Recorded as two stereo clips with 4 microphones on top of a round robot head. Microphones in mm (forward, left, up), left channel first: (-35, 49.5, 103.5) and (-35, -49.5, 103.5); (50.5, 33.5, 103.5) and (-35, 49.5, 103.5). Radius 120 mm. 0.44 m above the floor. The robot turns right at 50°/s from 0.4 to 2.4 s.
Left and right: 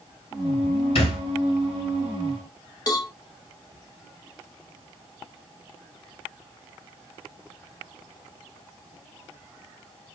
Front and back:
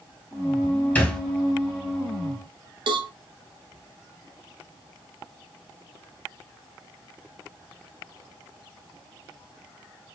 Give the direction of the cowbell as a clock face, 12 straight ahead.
7 o'clock.